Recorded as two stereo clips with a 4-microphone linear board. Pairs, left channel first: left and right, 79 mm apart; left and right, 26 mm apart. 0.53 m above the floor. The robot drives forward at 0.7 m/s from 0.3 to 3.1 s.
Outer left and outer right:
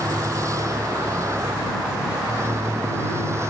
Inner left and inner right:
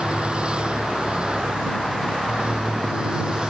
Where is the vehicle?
40° right (ahead or behind); by 3.5 s 35° right (ahead or behind).